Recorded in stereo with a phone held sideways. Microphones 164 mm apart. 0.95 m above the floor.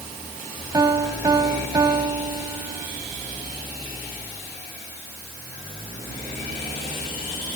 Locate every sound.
0.7 s a piano: 25° right (ahead or behind), 1.4 m